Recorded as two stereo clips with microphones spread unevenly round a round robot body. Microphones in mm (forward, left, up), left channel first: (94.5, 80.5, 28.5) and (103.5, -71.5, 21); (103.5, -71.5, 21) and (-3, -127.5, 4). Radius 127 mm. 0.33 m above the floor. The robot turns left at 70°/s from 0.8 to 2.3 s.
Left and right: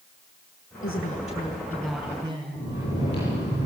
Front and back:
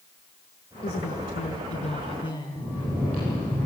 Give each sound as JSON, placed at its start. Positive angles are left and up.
{"t": 0.8, "sound": "a woman speaking", "azimuth_deg": 80, "distance_m": 5.0}
{"t": 2.5, "sound": "snoring", "azimuth_deg": 120, "distance_m": 9.5}